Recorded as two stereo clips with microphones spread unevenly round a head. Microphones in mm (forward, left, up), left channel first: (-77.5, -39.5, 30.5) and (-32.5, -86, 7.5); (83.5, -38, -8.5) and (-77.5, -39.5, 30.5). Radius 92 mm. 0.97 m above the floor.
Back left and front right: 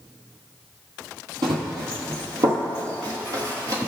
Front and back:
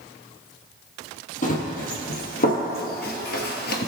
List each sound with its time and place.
1.4 s running footsteps: 45° right, 1.9 m; by 3.9 s 15° left, 1.2 m